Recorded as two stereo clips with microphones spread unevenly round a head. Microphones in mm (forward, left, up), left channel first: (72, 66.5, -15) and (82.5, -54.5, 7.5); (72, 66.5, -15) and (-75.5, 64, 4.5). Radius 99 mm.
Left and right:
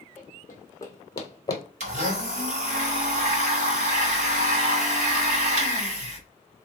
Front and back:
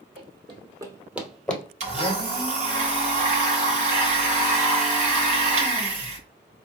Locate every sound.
0.2 s running footsteps: 175° left, 1.5 m; by 1.6 s 80° left, 1.1 m
1.8 s a blender: 125° right, 0.9 m